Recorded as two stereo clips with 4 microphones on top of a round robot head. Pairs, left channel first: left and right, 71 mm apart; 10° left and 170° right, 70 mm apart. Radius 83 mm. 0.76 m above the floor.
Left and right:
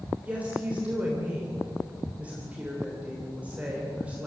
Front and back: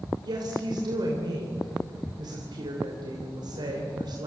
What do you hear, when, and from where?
0.2 s a woman speaking: 160° right, 3.5 m